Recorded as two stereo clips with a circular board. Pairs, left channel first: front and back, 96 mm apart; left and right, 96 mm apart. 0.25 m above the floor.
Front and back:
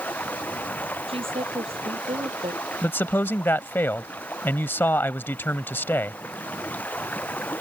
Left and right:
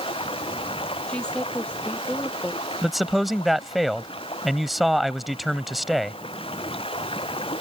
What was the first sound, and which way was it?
Running water, 75° left.